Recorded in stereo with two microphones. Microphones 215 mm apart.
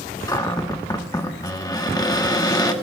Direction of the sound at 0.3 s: 20° left (ahead or behind).